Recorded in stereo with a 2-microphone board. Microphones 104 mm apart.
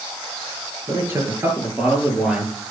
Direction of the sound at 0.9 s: 30° right (ahead or behind).